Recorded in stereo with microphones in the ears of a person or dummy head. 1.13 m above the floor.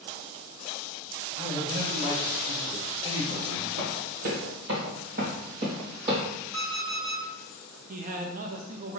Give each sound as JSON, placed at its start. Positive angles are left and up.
{"t": 1.4, "sound": "a man speaking", "side_deg": -35, "distance_m": 2.0}
{"t": 3.8, "sound": "running footsteps", "side_deg": -55, "distance_m": 1.9}
{"t": 6.5, "sound": "an alarm clock", "side_deg": -25, "distance_m": 2.0}
{"t": 7.9, "sound": "a man speaking", "side_deg": -45, "distance_m": 0.8}